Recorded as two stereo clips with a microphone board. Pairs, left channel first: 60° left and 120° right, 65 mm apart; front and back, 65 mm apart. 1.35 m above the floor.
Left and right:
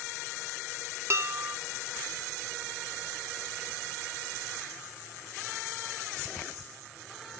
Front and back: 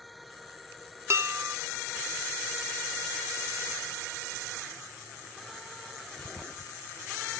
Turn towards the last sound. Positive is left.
turn(degrees=-150)